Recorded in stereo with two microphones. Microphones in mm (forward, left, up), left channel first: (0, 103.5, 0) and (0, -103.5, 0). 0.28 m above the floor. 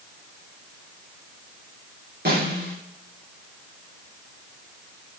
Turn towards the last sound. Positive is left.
turn(degrees=-50)  # may be behind; listen again after turning